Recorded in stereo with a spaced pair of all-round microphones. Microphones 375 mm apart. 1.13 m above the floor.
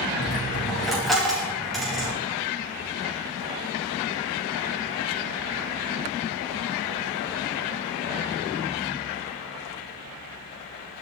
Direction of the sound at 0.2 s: Centre (ahead or behind).